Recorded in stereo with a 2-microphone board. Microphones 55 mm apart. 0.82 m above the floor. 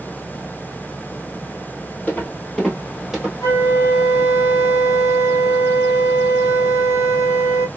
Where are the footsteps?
25° left (ahead or behind), 1.4 m; by 3.3 s 10° right (ahead or behind), 1.4 m.